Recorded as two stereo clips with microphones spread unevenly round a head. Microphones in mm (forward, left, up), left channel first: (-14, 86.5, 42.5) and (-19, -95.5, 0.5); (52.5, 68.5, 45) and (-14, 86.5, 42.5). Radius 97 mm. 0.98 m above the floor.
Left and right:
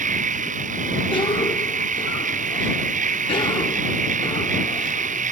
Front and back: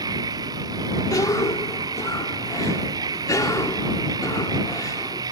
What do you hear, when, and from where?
0.0 s a machine running: 140° right
1.1 s a cough: 20° left